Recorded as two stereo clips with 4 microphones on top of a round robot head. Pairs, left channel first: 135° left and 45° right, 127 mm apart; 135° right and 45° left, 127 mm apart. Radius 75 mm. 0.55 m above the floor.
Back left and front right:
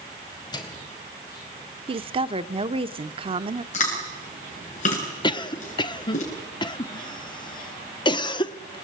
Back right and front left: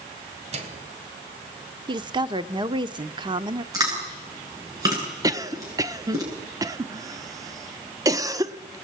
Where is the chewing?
105° left, 8.5 m.